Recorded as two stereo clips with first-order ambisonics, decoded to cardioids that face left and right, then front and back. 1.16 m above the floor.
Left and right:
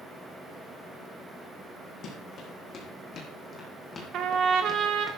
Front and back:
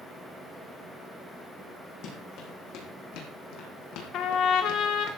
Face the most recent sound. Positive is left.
turn(degrees=-45)